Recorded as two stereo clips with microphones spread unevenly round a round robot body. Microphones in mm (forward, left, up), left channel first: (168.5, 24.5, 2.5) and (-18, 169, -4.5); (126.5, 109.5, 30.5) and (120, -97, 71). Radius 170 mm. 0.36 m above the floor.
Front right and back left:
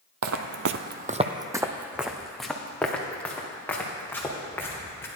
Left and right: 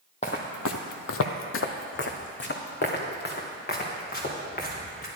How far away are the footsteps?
About 0.7 m.